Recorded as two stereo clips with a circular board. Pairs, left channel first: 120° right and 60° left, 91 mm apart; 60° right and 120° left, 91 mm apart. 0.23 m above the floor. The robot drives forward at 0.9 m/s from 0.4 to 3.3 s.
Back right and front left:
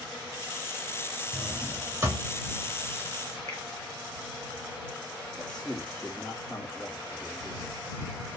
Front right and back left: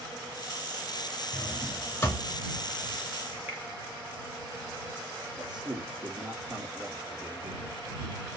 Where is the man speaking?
160° left, 3.5 m.